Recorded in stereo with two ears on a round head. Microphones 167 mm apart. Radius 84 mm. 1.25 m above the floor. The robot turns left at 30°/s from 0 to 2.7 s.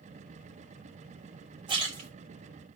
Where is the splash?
25° right (ahead or behind), 3 m; by 2.1 s 40° right (ahead or behind), 3 m.